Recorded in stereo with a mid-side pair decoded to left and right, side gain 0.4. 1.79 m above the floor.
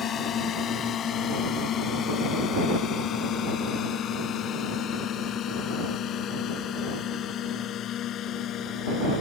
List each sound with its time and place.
0.0 s a drone: 65° left; by 9.2 s 75° left